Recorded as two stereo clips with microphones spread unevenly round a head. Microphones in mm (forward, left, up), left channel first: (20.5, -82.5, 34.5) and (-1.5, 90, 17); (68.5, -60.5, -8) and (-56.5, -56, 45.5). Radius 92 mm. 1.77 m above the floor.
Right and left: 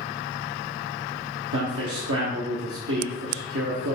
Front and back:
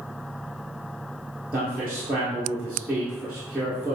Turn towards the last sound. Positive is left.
turn(degrees=95)